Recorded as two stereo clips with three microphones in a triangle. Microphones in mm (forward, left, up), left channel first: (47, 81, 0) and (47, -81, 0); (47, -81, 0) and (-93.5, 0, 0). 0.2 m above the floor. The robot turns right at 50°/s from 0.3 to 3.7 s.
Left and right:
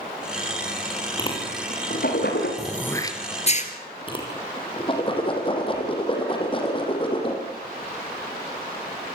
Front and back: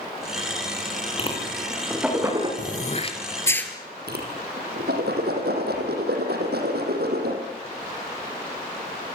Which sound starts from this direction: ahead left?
A whoosh, at 1.2 s.